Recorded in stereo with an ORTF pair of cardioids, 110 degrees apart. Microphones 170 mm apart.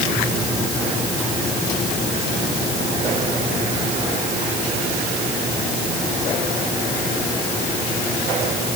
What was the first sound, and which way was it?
Only background noise.